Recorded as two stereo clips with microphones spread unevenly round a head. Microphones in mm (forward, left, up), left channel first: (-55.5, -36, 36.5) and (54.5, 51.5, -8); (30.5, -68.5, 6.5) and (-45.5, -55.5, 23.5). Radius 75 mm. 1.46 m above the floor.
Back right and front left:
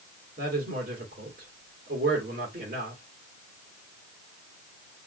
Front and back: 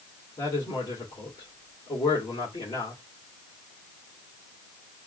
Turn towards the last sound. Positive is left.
turn(degrees=10)